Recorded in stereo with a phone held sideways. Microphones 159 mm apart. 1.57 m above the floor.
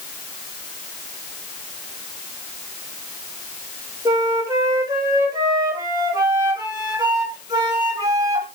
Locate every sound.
4.0 s a flute: 25° right (ahead or behind), 2.0 m